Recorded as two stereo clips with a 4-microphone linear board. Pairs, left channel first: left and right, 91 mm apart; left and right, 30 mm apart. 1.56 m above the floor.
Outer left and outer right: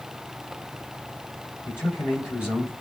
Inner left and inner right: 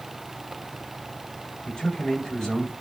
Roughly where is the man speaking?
Left.